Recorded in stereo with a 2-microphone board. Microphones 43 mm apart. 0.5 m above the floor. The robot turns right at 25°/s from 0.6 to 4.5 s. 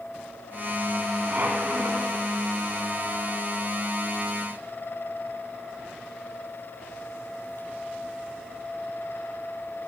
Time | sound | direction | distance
1.3 | a squeak | 40° right (ahead or behind) | 1.8 m